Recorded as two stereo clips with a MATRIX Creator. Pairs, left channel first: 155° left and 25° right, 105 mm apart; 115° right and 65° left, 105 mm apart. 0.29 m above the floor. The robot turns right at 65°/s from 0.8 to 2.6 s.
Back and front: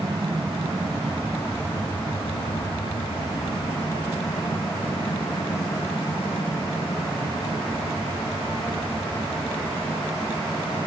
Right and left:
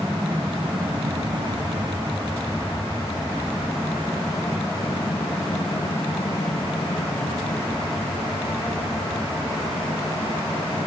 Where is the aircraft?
10° left; by 10.9 s 145° right.